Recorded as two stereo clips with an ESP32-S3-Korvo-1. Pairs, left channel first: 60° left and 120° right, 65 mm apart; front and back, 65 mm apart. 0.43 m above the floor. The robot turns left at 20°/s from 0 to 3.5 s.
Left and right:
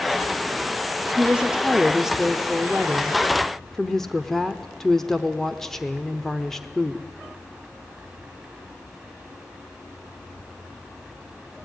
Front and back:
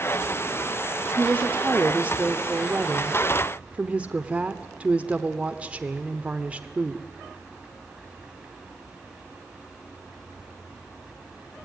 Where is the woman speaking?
170° right, 0.9 m; by 7.0 s 140° left, 0.9 m.